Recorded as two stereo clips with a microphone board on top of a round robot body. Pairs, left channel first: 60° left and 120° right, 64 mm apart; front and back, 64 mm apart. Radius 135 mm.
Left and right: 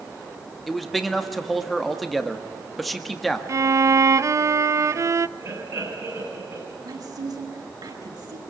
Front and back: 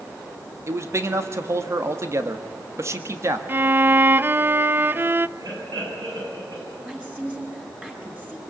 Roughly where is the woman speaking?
Right.